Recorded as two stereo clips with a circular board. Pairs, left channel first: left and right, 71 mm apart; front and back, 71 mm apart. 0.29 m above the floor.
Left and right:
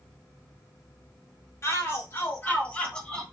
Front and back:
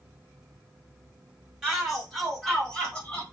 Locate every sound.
1.6 s a shout: 95° left, 1.9 m; by 3.2 s 25° left, 1.5 m